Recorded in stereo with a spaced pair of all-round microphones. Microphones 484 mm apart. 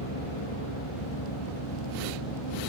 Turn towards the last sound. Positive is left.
turn(degrees=65)  # may be behind; listen again after turning